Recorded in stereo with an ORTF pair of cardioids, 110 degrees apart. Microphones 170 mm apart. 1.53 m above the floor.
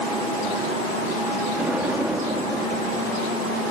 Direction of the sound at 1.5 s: 10° right.